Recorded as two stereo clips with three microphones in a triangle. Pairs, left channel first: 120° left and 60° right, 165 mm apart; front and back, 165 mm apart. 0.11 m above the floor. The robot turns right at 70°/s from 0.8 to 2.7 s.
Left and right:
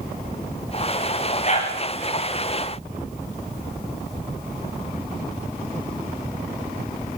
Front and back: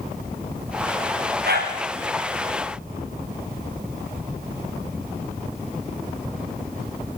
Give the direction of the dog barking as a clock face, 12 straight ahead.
7 o'clock.